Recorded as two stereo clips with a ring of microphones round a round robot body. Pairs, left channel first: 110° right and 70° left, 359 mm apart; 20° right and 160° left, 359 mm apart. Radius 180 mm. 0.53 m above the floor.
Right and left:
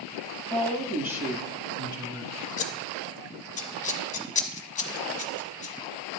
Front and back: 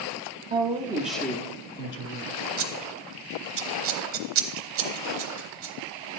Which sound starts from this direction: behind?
Scissors, at 2.6 s.